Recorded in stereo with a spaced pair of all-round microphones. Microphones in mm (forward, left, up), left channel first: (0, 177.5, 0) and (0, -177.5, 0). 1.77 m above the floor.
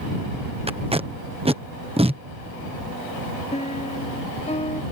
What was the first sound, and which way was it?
Tape being pulled, 15° right (ahead or behind).